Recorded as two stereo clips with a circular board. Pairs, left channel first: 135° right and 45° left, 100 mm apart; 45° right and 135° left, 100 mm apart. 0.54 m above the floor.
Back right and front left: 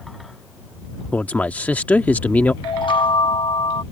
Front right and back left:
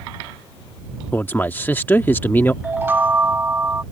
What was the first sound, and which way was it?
A man speaking, 80° right.